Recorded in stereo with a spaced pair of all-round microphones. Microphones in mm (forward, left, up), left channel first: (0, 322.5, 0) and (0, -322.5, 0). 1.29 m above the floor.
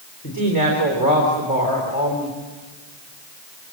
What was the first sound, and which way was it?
A woman speaking, 30° left (ahead or behind).